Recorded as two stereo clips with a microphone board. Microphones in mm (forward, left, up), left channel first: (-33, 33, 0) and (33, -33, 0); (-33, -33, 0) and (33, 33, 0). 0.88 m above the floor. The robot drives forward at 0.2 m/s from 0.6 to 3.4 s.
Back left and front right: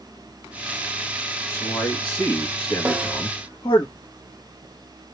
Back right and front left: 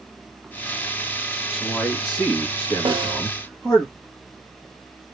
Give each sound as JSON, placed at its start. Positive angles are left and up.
{"t": 1.5, "sound": "a man speaking", "azimuth_deg": 125, "distance_m": 1.4}
{"t": 2.9, "sound": "a snare drum", "azimuth_deg": 25, "distance_m": 0.7}